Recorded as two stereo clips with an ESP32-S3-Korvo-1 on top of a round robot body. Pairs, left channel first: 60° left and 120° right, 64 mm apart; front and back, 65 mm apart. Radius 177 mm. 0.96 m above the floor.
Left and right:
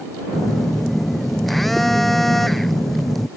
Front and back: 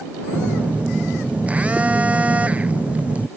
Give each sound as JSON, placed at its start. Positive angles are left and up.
{"t": 0.3, "sound": "a phone buzzing", "azimuth_deg": 145}